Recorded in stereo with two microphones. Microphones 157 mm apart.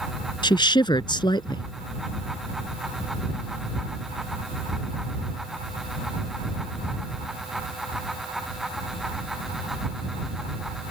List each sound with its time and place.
0.4 s a woman speaking: 30° left (ahead or behind)